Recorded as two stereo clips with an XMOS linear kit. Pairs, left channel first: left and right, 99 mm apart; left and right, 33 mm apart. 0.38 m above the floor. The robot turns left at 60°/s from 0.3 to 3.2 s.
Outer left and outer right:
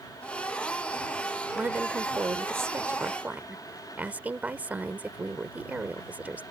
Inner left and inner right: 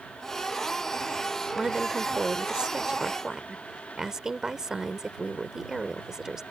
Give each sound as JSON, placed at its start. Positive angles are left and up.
{"t": 1.6, "sound": "a woman speaking", "side_deg": -20}